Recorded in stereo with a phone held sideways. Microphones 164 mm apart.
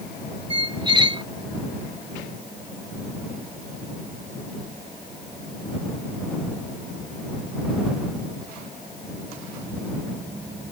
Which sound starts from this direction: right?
A squeak, at 0.5 s.